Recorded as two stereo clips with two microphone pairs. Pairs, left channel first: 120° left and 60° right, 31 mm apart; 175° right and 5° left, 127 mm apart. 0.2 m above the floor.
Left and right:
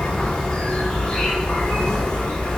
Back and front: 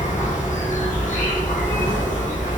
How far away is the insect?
About 1.2 m.